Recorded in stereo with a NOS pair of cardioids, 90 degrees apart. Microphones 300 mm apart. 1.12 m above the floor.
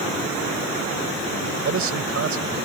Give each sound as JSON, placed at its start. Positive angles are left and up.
{"t": 1.4, "sound": "a man speaking", "azimuth_deg": -50}